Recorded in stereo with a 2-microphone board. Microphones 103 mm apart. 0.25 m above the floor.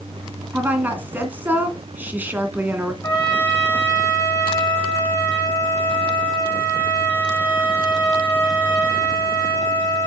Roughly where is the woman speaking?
Centre.